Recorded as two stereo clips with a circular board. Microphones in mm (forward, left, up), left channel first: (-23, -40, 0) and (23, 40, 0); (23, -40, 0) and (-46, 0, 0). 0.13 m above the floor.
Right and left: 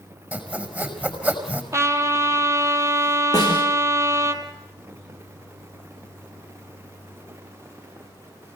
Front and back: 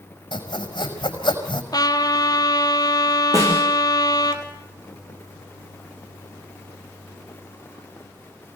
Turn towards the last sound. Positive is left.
turn(degrees=-165)